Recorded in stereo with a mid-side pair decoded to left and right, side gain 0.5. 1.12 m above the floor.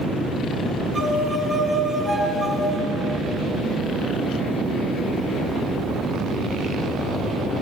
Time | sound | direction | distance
0.9 | a violin | 35° right | 6 m